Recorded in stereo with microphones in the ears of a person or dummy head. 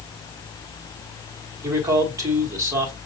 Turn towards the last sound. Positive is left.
turn(degrees=-15)  # may be behind; listen again after turning